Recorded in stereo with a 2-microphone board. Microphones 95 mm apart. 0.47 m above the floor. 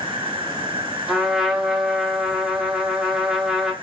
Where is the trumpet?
5° right (ahead or behind), 1.2 m.